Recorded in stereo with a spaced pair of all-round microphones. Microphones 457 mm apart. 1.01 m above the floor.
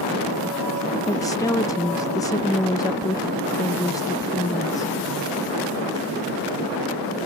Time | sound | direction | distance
1.1 | a woman speaking | 10° left (ahead or behind) | ?